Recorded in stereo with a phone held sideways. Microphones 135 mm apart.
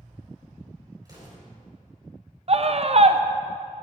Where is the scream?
50° right (ahead or behind), 0.6 m.